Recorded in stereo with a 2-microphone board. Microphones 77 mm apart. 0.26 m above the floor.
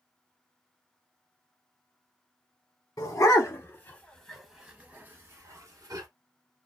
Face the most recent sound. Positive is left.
turn(degrees=-50)  # may be behind; listen again after turning